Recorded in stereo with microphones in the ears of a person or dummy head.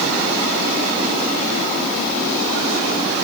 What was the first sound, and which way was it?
Only background noise.